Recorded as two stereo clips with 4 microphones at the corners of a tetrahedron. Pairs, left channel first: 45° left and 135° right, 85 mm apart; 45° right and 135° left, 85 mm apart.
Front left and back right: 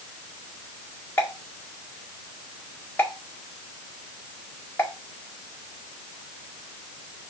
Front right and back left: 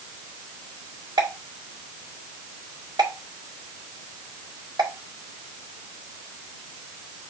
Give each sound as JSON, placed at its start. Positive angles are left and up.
{"t": 1.2, "sound": "a pop", "azimuth_deg": 105, "distance_m": 2.0}